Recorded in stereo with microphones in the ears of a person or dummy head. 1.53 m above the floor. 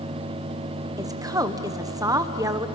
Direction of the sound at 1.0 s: 20° right (ahead or behind).